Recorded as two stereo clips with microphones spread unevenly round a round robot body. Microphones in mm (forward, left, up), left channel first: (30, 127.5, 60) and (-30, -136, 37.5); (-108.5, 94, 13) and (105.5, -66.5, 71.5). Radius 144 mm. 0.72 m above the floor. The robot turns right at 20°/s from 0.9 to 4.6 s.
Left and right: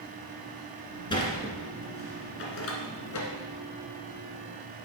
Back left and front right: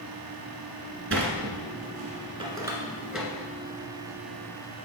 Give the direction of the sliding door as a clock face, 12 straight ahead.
12 o'clock.